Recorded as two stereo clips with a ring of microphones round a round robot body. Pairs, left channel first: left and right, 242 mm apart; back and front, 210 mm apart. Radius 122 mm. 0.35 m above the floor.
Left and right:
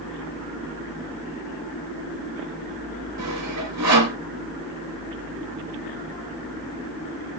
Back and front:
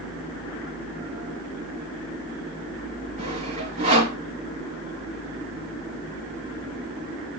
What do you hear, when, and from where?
3.2 s sawing: 65° right, 4 m